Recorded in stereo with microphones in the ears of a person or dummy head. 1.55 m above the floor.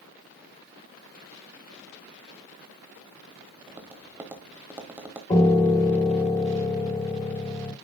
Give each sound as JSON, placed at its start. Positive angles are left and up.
{"t": 3.7, "sound": "tapping", "side_deg": -10, "distance_m": 1.1}
{"t": 5.3, "sound": "a piano", "side_deg": 20, "distance_m": 1.2}